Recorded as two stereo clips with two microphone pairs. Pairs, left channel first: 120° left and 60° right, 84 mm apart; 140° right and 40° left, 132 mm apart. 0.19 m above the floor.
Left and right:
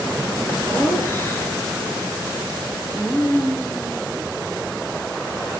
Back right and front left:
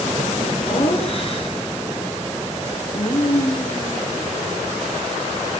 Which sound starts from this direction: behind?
Laughter, at 0.6 s.